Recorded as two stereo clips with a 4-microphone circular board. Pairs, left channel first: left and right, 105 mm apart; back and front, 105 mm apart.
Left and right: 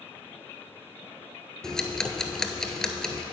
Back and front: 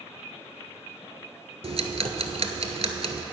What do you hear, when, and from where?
1.6 s ticking: 5° left, 0.8 m